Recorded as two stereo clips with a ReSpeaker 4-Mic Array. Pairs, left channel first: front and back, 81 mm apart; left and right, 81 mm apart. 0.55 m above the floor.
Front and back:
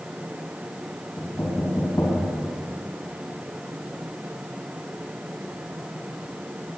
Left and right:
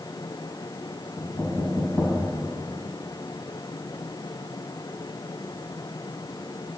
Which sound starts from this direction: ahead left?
Knocking, at 1.2 s.